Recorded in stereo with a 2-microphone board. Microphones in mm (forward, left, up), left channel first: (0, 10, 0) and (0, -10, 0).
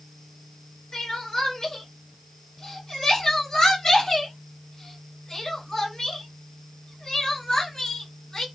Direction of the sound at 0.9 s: 35° left (ahead or behind).